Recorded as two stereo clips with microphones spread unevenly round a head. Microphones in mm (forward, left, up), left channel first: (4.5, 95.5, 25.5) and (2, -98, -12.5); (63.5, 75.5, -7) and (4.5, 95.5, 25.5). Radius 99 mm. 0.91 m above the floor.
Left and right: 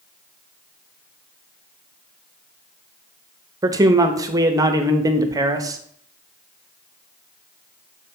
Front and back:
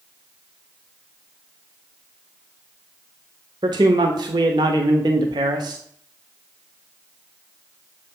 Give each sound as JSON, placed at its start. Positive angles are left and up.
{"t": 3.6, "sound": "a man speaking", "azimuth_deg": -155, "distance_m": 0.8}